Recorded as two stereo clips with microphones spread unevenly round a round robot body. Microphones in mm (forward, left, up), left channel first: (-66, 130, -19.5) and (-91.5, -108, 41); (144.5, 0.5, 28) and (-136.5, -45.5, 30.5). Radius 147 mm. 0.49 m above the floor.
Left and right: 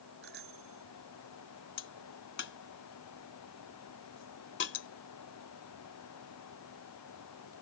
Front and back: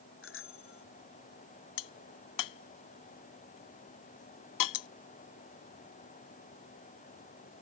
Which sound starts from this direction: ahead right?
A bicycle bell, at 0.2 s.